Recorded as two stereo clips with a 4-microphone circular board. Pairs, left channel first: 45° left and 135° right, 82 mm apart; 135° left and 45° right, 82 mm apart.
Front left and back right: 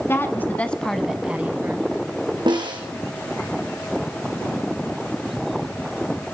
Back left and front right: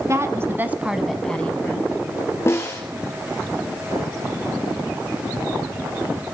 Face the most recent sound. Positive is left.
turn(degrees=-165)